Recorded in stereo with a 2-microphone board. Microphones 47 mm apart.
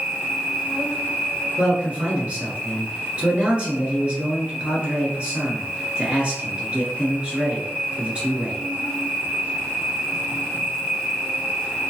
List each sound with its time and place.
0.0 s an insect: 25° right (ahead or behind), 1.8 m
1.6 s a man speaking: 25° right (ahead or behind), 1.3 m